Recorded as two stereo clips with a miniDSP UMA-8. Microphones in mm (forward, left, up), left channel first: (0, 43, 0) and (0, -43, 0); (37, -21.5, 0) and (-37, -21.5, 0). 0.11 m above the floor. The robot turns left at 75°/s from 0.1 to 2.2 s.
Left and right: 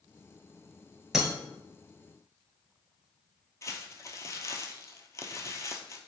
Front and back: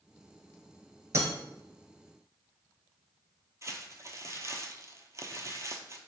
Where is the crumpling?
140° left, 0.5 m.